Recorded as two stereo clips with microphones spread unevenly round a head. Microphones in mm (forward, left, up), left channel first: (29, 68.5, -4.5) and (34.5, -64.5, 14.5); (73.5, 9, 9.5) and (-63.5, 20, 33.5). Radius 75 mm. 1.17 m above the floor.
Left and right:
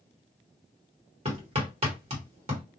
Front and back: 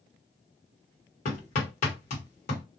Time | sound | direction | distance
1.2 | hammering | 40° right | 1.2 m